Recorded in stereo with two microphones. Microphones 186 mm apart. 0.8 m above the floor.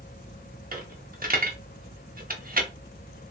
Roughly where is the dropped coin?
Right.